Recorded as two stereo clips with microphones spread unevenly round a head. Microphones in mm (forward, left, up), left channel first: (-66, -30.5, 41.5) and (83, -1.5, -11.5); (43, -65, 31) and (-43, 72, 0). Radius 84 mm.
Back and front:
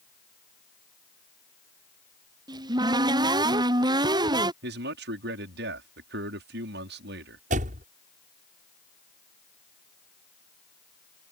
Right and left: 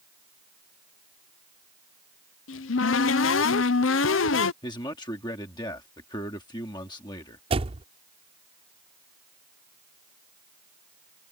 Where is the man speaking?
10° left.